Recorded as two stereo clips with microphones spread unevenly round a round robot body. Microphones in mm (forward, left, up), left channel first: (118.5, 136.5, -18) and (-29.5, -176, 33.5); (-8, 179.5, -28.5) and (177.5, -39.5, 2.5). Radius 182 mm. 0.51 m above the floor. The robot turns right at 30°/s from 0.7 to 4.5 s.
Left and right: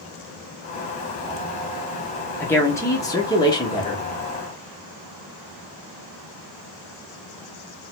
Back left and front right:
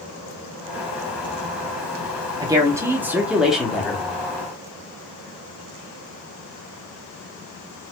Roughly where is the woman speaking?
Ahead.